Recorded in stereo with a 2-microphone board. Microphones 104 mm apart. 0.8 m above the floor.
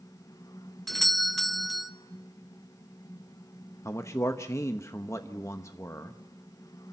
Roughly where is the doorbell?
Centre.